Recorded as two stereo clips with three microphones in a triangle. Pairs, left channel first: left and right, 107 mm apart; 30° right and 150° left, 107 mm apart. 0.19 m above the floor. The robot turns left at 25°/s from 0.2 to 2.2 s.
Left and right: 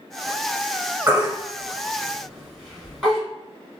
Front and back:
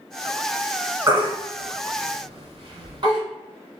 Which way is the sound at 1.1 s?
155° right.